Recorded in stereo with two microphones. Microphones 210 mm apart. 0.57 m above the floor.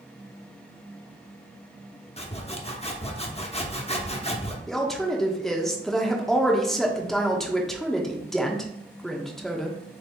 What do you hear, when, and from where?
2.2 s sawing: 30° left (ahead or behind), 0.7 m
4.7 s a woman speaking: centre (ahead or behind), 0.7 m